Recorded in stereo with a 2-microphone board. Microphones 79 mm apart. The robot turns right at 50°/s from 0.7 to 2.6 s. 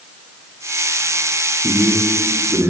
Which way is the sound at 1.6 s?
120° right.